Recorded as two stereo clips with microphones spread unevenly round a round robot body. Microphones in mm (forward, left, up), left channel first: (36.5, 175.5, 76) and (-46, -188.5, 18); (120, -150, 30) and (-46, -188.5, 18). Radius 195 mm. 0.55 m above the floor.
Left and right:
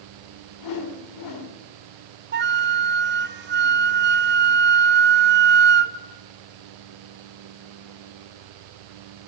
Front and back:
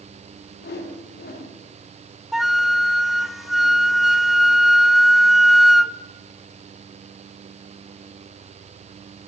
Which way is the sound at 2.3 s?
85° right.